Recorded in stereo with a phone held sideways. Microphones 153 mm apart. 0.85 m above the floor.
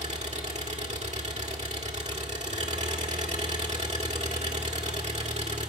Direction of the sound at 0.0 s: 45° right (ahead or behind).